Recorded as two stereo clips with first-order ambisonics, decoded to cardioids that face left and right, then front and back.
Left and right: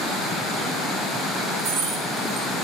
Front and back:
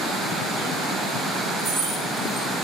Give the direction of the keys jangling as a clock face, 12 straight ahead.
3 o'clock.